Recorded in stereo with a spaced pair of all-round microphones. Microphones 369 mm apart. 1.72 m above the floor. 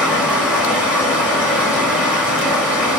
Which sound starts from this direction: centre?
Running water, at 0.0 s.